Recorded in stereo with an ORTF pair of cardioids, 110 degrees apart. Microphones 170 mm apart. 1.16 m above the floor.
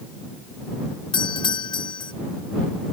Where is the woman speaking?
I don't hear a woman speaking.